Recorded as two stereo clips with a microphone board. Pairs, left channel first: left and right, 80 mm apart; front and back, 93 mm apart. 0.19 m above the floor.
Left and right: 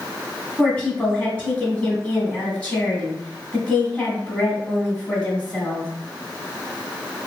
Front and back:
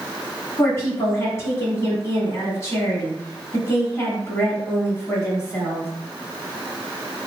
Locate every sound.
0.6 s a woman speaking: 30° left, 1.4 m